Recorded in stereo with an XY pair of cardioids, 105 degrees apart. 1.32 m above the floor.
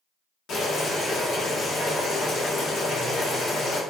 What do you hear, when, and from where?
0.5 s boiling: 65° left, 1.3 m